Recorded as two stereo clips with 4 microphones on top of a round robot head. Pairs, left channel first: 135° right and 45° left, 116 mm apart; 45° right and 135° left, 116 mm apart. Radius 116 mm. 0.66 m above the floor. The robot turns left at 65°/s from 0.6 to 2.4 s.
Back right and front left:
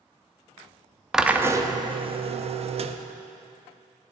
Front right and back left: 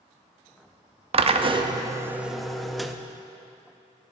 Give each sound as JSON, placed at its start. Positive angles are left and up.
{"t": 1.1, "sound": "a drill", "azimuth_deg": 130, "distance_m": 0.7}